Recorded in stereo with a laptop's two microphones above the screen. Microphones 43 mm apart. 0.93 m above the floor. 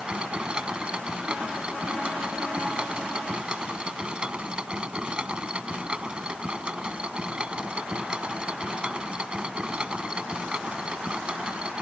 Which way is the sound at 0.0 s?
25° right (ahead or behind).